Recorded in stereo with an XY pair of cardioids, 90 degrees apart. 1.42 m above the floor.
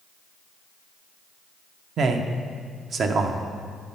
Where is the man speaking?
65° right, 0.7 m.